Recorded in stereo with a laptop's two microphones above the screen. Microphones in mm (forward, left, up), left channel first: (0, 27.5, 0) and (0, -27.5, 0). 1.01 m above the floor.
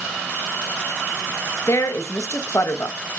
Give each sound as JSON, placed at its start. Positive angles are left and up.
{"t": 1.7, "sound": "a woman speaking", "side_deg": 65, "distance_m": 1.2}